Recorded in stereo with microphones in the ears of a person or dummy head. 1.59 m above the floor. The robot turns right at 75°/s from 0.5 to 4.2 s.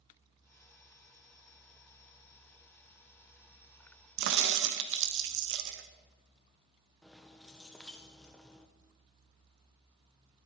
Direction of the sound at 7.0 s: Centre (ahead or behind).